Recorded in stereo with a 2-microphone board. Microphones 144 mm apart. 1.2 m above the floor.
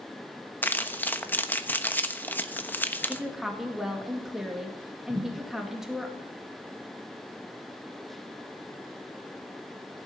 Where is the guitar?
No guitar in this recording.